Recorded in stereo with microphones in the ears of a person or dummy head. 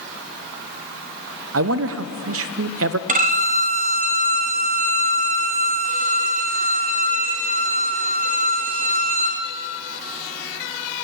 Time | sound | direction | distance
1.5 | a man speaking | 70° right (ahead or behind) | 0.6 m
3.1 | a violin | 40° right (ahead or behind) | 0.8 m